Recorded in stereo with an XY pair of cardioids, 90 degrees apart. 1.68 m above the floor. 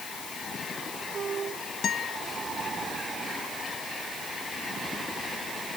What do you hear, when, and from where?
1.8 s a guitar: 65° left